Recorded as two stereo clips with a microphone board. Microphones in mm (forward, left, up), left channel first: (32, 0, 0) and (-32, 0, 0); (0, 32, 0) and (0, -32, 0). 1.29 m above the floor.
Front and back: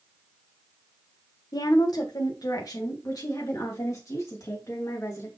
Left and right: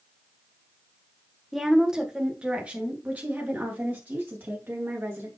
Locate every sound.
1.5 s a woman speaking: 5° right, 1.2 m; by 5.3 s 35° right, 3 m